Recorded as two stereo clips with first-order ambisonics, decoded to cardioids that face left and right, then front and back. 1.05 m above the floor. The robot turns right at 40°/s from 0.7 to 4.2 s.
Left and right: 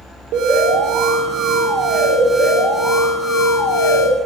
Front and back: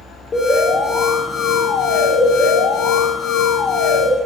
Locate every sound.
0.3 s an alarm: 80° right, 1.2 m; by 4.1 s 60° left, 1.2 m